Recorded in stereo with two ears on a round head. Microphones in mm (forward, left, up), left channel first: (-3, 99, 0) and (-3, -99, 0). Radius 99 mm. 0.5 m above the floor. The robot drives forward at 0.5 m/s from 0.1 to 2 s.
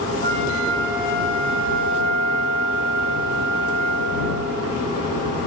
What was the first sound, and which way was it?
A flute, 55° right (ahead or behind).